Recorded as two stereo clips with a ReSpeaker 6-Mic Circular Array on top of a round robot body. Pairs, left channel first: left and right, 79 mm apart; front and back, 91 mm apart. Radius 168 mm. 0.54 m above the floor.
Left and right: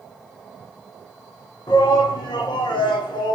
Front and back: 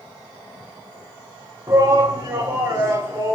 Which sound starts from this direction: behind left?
A shout, at 1.7 s.